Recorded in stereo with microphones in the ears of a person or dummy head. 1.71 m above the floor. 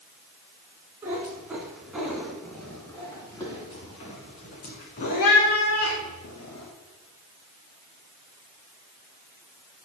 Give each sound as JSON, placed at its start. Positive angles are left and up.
{"t": 1.0, "sound": "a cat meowing", "side_deg": -15, "distance_m": 2.0}